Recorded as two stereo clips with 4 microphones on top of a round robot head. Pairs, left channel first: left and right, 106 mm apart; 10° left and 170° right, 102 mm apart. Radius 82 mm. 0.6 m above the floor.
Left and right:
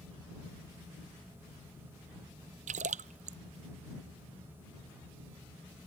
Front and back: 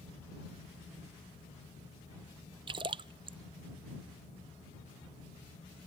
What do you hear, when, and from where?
2.7 s a splash: 115° right